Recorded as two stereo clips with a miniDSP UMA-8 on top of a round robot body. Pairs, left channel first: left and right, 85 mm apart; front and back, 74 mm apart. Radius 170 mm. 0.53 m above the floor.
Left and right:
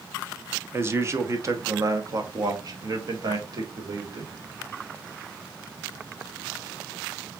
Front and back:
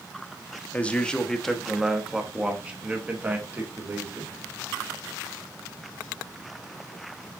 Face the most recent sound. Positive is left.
turn(degrees=-125)